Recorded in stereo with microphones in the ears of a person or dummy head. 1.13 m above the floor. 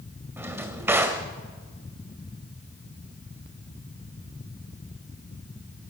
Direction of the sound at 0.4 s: 5° right (ahead or behind).